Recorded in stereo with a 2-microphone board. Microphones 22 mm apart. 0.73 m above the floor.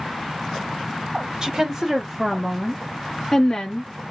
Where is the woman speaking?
35° right (ahead or behind), 1.1 m; by 3.9 s 30° left (ahead or behind), 1.0 m.